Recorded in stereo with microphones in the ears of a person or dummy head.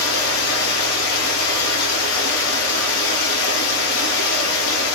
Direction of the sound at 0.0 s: 75° left (ahead or behind).